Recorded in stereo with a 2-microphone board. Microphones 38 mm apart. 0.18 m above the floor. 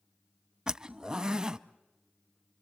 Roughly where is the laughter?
No laughter in this recording.